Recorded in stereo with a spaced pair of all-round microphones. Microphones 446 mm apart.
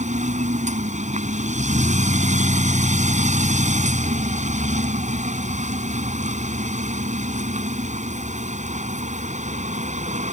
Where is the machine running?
15° right (ahead or behind).